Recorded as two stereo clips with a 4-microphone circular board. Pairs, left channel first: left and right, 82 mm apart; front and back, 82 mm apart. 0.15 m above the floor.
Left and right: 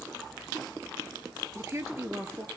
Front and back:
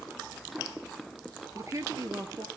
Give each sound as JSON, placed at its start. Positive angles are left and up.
{"t": 1.6, "sound": "a woman speaking", "azimuth_deg": -140, "distance_m": 2.0}